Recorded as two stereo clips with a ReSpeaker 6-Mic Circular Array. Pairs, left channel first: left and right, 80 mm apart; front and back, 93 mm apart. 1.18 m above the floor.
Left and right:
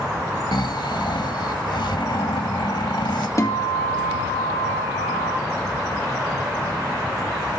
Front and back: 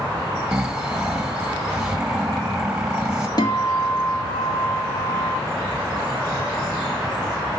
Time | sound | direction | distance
0.5 | snoring | 100° left | 1.2 m
3.4 | a guitar | 45° left | 1.8 m